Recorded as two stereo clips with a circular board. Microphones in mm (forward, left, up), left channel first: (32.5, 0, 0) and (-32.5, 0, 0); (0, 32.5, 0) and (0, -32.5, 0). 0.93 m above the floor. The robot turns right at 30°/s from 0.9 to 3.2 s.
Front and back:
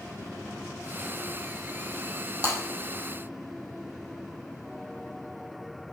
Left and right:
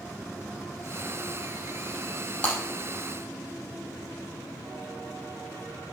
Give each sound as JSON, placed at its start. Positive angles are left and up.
{"t": 2.4, "sound": "breaking glass", "azimuth_deg": 20, "distance_m": 4.0}